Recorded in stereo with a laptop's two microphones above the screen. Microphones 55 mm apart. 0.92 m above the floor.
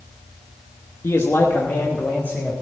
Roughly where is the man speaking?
Left.